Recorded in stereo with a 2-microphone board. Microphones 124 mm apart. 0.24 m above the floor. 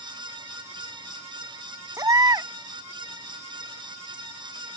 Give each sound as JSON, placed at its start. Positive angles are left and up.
{"t": 2.0, "sound": "a baby crying", "side_deg": -30}